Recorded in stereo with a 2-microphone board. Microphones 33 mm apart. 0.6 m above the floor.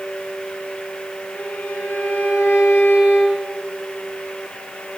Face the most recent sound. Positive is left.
turn(degrees=80)